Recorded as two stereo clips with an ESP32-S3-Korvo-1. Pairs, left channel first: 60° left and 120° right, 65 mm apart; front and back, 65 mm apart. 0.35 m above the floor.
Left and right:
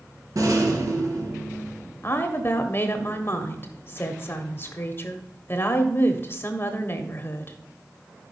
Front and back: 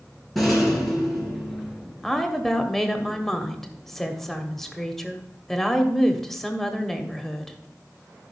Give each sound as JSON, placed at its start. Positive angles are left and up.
{"t": 0.3, "sound": "a rattle", "azimuth_deg": -90, "distance_m": 3.0}
{"t": 2.0, "sound": "a woman speaking", "azimuth_deg": 80, "distance_m": 1.3}